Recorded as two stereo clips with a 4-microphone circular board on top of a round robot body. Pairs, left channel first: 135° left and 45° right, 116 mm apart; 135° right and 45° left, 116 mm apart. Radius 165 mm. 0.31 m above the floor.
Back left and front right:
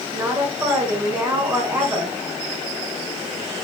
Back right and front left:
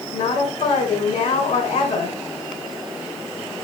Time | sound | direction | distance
0.1 | a woman speaking | 125° right | 4 m